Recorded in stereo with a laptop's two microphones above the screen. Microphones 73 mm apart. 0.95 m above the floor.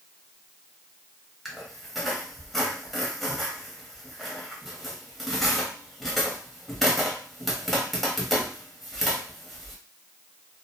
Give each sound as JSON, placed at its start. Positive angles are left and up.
{"t": 1.4, "sound": "a squeak", "side_deg": 0, "distance_m": 0.9}